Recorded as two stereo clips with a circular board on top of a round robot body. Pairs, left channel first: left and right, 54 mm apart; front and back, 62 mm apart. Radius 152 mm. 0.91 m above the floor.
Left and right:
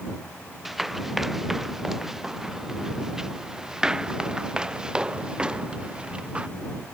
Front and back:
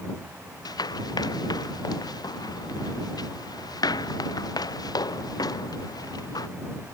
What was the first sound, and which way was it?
Running footsteps, 5° right.